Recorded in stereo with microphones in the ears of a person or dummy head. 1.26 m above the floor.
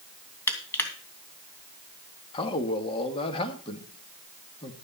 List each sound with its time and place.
0.5 s crushing: 15° left (ahead or behind), 2.5 m
2.3 s a man speaking: 35° left (ahead or behind), 2.0 m